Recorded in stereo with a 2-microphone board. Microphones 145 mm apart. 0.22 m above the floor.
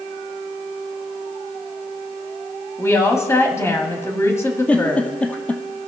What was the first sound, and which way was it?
A woman speaking, 20° left (ahead or behind).